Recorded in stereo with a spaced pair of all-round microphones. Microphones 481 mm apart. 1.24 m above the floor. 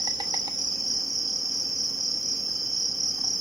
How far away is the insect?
About 0.7 m.